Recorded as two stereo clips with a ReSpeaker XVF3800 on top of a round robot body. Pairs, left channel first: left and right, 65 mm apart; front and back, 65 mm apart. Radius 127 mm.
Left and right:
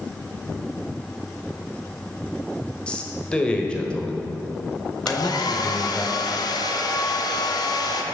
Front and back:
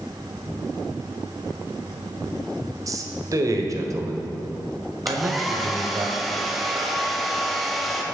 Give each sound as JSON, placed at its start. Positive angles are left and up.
{"t": 2.9, "sound": "a man speaking", "azimuth_deg": 165, "distance_m": 1.7}
{"t": 5.1, "sound": "a hair dryer", "azimuth_deg": 90, "distance_m": 1.2}